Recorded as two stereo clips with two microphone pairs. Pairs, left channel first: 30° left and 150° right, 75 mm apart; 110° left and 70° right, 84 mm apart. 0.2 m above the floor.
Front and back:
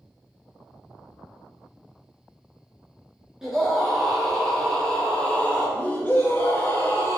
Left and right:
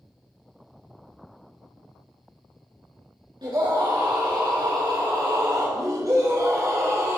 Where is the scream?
70° right, 2.5 m; by 7.2 s 15° right, 3 m.